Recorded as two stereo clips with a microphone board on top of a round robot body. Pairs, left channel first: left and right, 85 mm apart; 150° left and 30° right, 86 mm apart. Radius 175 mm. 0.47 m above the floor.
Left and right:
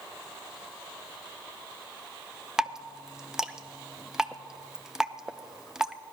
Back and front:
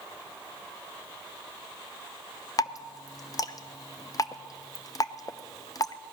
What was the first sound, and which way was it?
Dripping, 175° right.